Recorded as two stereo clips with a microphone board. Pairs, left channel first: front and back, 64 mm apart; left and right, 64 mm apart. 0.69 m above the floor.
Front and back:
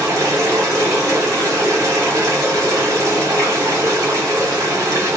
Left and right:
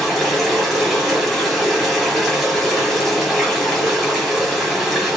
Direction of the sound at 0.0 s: Straight behind.